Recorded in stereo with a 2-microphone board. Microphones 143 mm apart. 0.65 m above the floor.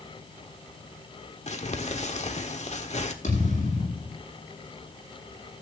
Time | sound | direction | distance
1.5 | crumpling | 50° left (ahead or behind) | 1.4 m
3.2 | a thud | 60° left (ahead or behind) | 9.5 m